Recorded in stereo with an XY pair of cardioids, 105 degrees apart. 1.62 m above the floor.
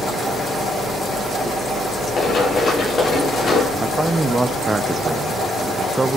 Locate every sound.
2.2 s running footsteps: 50° left, 6 m
3.8 s a man speaking: 20° right, 0.6 m